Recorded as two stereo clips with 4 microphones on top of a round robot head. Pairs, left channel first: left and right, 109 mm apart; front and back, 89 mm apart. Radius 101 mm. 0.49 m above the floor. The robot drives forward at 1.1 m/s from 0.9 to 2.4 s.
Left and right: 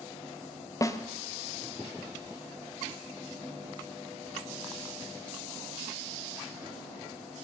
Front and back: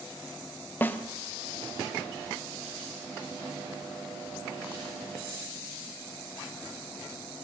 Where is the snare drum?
55° left, 1.1 m; by 1.0 s 60° left, 1.1 m.